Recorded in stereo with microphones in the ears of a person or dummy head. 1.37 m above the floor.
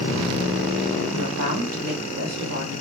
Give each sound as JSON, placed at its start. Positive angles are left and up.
{"t": 1.1, "sound": "a woman speaking", "side_deg": -75, "distance_m": 1.6}